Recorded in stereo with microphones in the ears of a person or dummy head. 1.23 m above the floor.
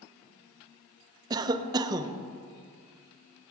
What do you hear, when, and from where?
1.3 s a cough: 20° right (ahead or behind), 0.8 m